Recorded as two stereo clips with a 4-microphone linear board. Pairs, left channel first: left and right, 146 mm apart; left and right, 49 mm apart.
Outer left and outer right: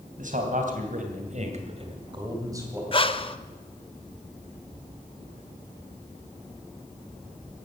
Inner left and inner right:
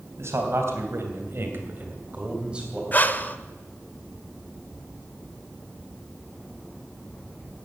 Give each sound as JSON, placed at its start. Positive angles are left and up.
{"t": 0.2, "sound": "a man speaking", "side_deg": -65, "distance_m": 3.5}
{"t": 2.9, "sound": "breathing", "side_deg": 35, "distance_m": 0.7}